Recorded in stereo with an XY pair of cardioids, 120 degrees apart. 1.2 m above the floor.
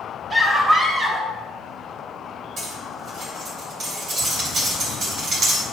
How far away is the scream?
About 3 m.